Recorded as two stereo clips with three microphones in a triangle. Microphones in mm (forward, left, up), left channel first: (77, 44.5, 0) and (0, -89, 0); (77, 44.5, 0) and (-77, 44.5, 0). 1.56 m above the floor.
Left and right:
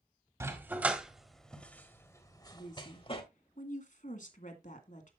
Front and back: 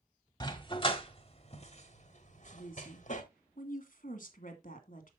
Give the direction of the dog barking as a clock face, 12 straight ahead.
2 o'clock.